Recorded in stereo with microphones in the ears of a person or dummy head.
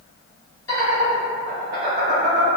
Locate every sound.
0.7 s laughter: 15° left (ahead or behind), 1.1 m; by 2.5 s 45° right (ahead or behind), 0.8 m